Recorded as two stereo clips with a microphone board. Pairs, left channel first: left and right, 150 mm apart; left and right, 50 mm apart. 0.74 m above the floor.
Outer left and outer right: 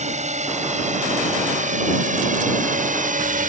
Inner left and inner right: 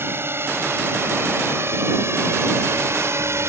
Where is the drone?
50° right (ahead or behind); by 3.5 s 60° right (ahead or behind).